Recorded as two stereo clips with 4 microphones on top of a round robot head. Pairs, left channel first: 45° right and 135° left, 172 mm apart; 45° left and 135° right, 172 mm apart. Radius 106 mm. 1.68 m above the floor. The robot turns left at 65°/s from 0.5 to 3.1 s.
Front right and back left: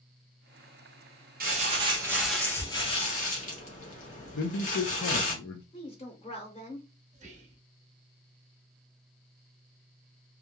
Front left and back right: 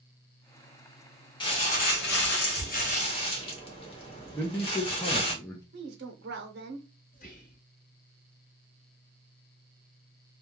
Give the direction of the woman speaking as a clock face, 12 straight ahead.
3 o'clock.